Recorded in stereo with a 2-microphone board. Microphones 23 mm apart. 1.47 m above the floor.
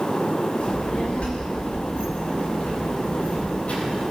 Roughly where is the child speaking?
Left.